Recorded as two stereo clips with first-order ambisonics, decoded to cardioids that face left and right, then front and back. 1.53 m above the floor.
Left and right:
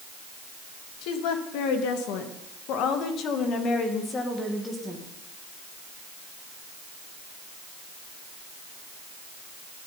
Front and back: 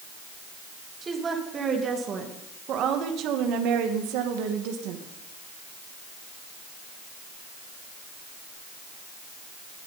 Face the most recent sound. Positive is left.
turn(degrees=-175)